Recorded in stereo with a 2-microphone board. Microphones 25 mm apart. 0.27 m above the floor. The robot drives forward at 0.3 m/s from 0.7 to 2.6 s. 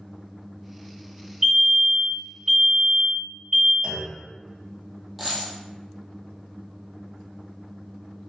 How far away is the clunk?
About 0.9 m.